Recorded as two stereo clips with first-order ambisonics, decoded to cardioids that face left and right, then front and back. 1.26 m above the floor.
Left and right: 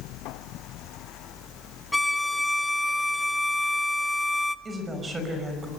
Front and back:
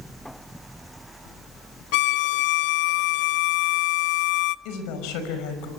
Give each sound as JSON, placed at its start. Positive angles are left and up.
{"t": 1.9, "sound": "a violin", "azimuth_deg": 5, "distance_m": 0.7}
{"t": 4.7, "sound": "a woman speaking", "azimuth_deg": -15, "distance_m": 5.5}